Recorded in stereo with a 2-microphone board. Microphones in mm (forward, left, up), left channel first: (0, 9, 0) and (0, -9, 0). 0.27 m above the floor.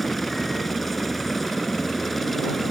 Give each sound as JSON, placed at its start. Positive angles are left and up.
{"t": 0.0, "sound": "a helicopter", "side_deg": 10}